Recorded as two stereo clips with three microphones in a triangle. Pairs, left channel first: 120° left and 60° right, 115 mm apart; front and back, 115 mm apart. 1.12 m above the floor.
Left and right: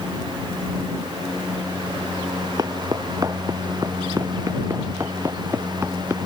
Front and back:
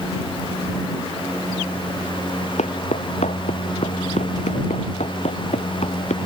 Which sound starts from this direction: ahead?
Footsteps, at 2.6 s.